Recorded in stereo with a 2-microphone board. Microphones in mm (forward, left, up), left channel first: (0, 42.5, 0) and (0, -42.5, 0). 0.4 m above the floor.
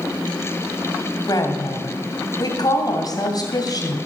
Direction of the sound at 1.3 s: 50° left (ahead or behind).